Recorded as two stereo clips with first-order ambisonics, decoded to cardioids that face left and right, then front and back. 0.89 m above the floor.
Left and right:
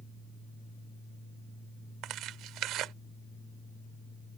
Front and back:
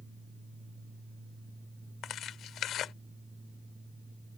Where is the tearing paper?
50° right.